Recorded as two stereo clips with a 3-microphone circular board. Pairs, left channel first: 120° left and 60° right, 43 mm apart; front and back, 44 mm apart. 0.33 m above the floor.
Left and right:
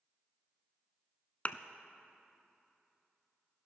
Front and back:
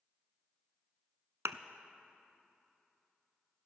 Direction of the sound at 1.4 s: 175° left.